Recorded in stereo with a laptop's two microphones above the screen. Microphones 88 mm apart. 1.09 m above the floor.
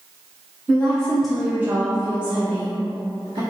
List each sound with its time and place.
0.7 s a woman speaking: 15° left (ahead or behind), 1.1 m; by 3.4 s 80° right, 1.3 m